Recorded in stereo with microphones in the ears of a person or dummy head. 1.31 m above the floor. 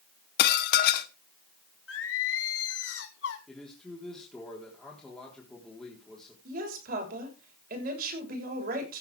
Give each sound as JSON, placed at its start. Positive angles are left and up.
{"t": 0.4, "sound": "dishes clattering", "side_deg": 65, "distance_m": 1.1}
{"t": 1.9, "sound": "singing", "side_deg": 75, "distance_m": 2.5}
{"t": 3.5, "sound": "a man speaking", "side_deg": 5, "distance_m": 3.5}
{"t": 6.5, "sound": "a woman speaking", "side_deg": -55, "distance_m": 6.0}